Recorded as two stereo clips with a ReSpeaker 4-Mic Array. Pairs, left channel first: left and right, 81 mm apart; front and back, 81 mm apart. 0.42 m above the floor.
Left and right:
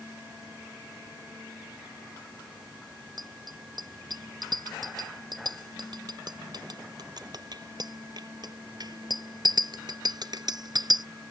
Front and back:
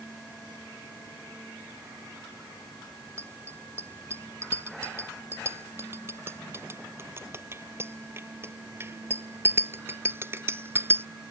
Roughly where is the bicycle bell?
Behind right.